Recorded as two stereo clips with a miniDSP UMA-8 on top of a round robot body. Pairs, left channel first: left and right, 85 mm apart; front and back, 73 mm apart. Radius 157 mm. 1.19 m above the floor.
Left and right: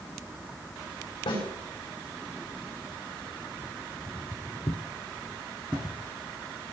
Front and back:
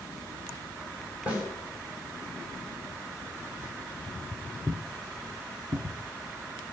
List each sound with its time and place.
1.3 s a snare drum: 110° left, 7 m
4.1 s footsteps: 65° left, 1.6 m; by 6.7 s 155° right, 2.5 m